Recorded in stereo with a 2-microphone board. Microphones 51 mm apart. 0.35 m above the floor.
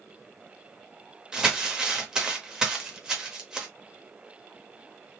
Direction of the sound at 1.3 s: 10° right (ahead or behind).